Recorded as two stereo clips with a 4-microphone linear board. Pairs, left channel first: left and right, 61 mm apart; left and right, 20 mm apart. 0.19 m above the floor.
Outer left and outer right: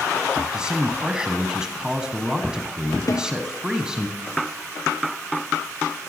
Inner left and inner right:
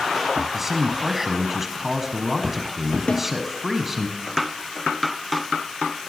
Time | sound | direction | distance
0.5 | a man speaking | 15° right (ahead or behind) | 1.0 m
3.1 | a snare drum | 70° left (ahead or behind) | 1.9 m